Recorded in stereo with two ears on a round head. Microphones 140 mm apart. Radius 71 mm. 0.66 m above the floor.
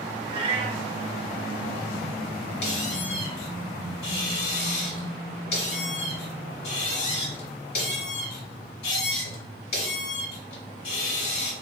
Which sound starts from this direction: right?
A cat meowing, at 0.3 s.